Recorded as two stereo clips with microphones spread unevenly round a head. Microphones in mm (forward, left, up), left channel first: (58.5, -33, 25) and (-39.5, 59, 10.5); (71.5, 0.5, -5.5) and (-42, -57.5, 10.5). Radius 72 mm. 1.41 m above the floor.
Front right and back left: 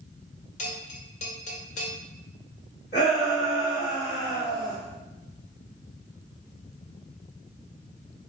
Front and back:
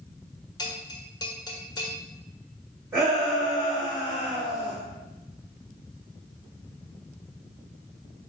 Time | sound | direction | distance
0.6 | a bell | 30° right | 1.6 m
2.9 | a shout | 85° right | 3 m